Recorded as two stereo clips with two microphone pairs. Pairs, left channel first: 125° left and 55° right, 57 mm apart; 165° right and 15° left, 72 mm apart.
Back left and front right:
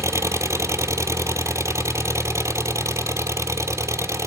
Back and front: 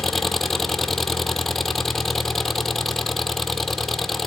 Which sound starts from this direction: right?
An engine running, at 0.0 s.